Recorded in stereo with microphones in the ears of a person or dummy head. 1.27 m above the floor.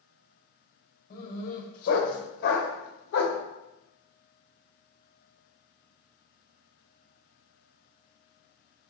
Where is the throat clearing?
No throat clearing in this recording.